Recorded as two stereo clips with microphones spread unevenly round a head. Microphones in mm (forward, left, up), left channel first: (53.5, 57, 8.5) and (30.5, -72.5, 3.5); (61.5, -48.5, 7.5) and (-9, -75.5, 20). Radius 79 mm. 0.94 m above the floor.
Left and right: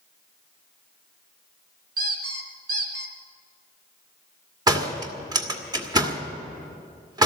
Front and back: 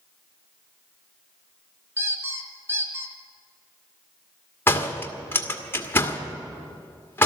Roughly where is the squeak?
Right.